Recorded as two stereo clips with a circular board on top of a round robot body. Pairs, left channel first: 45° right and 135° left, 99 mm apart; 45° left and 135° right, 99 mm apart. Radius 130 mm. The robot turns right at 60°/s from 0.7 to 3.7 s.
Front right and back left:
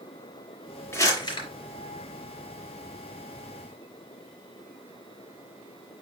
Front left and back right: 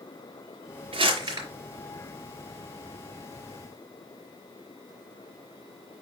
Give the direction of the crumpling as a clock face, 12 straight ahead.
4 o'clock.